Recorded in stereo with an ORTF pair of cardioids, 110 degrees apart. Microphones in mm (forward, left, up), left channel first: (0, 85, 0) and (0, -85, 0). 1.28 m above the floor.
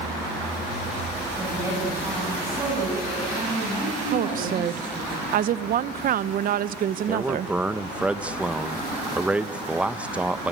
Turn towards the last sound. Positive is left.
turn(degrees=-5)